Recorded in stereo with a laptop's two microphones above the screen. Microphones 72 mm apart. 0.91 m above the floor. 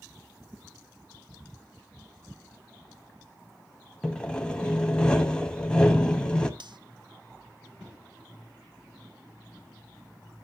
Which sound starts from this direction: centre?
Sawing, at 4.0 s.